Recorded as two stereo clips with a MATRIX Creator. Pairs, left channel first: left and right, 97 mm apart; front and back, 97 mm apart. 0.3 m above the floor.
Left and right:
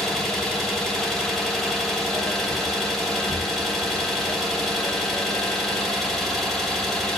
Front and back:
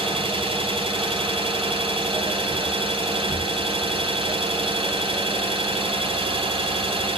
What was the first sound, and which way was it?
An engine running, 175° left.